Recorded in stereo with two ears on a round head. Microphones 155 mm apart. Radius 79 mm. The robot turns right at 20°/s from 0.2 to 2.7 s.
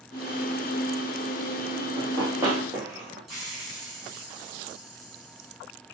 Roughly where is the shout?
I don't hear a shout.